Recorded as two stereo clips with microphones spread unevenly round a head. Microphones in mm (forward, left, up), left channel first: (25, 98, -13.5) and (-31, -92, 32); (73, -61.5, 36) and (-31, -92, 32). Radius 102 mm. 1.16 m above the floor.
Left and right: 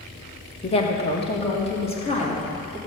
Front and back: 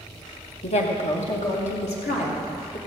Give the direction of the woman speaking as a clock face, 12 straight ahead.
11 o'clock.